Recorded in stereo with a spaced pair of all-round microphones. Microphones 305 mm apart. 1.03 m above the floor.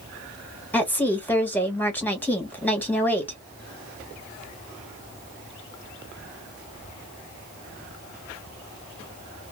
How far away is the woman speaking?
About 1.3 m.